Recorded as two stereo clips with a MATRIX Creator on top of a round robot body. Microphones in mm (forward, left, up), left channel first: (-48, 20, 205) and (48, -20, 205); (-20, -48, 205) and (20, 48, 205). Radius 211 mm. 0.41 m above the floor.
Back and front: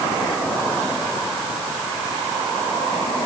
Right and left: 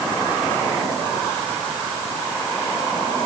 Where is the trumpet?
I don't hear a trumpet.